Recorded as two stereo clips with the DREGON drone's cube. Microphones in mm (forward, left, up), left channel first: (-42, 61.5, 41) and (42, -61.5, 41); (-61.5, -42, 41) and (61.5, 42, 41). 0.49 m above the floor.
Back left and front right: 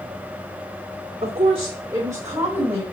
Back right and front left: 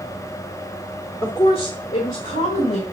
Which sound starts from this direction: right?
A woman speaking, at 1.2 s.